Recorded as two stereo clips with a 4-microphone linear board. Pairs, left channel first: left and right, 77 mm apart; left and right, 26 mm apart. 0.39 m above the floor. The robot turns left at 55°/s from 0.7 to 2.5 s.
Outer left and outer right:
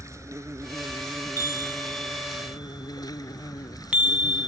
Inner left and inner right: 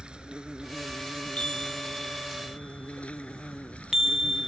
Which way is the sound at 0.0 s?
140° right.